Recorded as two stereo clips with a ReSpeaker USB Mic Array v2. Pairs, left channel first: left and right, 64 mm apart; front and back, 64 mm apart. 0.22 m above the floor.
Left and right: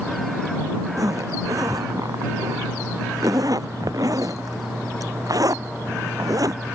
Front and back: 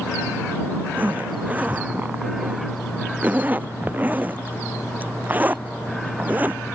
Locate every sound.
1.0 s a zipper: 115° right